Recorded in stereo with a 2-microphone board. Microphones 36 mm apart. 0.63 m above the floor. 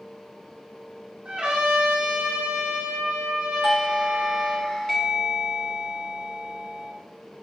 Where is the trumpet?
30° right (ahead or behind), 5.5 m.